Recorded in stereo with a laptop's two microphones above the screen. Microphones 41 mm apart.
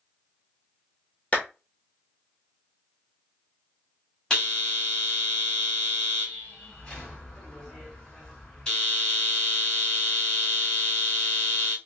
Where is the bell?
20° left (ahead or behind), 1.9 m.